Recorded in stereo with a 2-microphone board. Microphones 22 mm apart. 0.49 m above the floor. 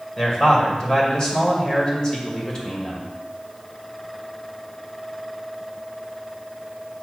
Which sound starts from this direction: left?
A man speaking, at 0.2 s.